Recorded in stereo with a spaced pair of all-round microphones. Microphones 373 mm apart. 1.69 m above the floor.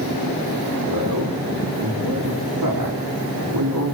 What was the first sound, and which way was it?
A man speaking, 85° right.